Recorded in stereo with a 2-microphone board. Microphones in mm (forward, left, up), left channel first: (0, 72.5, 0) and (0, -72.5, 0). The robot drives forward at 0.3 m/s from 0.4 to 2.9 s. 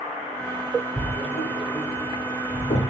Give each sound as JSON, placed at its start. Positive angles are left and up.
{"t": 1.0, "sound": "writing", "side_deg": 55, "distance_m": 9.0}